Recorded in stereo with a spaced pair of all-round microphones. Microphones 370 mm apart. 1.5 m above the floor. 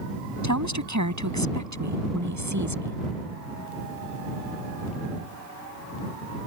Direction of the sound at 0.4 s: 50° right (ahead or behind).